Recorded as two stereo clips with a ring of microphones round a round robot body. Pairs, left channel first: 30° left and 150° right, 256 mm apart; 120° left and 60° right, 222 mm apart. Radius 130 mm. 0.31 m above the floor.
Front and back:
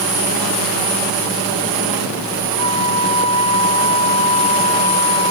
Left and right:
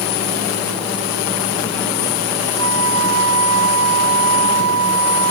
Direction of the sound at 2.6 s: 40° right.